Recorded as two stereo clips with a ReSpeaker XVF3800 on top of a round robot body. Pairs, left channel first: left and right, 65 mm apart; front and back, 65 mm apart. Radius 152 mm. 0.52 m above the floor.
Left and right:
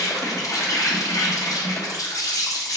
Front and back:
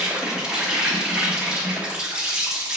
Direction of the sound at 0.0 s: 105° left.